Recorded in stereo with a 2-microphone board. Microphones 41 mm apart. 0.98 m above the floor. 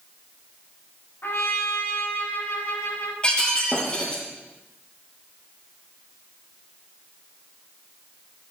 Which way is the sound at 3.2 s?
25° left (ahead or behind).